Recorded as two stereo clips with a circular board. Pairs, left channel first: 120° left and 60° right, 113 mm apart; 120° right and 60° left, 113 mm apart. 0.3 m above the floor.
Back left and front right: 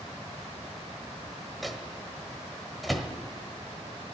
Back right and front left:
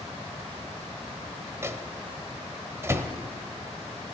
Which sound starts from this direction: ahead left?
A microwave, at 1.6 s.